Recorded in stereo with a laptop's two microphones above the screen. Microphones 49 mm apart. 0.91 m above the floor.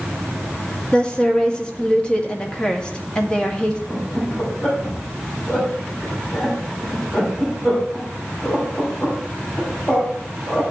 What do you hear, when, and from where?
0.9 s a woman speaking: 20° left (ahead or behind), 1.9 m
3.9 s laughter: 25° left (ahead or behind), 6 m